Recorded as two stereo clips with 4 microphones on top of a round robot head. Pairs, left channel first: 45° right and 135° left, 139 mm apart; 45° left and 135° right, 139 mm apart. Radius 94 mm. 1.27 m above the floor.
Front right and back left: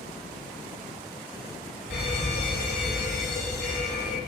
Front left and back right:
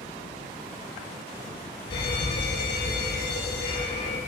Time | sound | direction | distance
1.9 | a fire alarm | 10° right | 10 m